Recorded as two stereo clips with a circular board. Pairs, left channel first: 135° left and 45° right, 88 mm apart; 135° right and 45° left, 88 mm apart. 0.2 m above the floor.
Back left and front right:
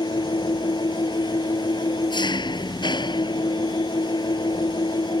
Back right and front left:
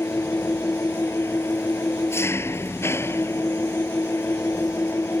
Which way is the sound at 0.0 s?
165° left.